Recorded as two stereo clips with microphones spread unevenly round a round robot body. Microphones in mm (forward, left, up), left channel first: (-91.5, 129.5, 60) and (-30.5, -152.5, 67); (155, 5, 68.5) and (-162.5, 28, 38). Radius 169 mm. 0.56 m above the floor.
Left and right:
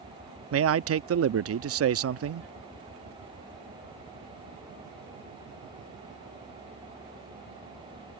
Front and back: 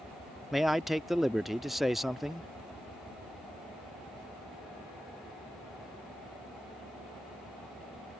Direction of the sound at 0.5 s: 100° right.